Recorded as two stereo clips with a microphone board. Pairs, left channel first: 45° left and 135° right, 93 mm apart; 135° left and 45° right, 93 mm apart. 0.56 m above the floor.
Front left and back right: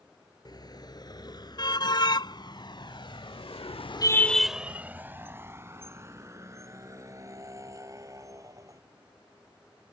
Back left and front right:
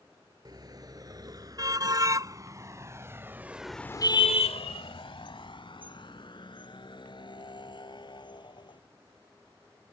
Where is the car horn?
Straight ahead; by 8.8 s 170° left.